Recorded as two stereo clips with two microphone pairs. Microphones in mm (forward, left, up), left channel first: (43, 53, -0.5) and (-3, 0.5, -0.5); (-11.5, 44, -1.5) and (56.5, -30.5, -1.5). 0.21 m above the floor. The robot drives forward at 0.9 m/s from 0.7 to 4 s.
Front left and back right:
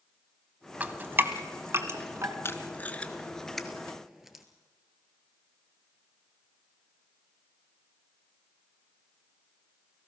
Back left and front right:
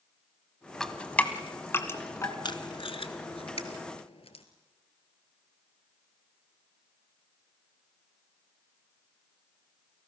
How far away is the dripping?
About 1.2 m.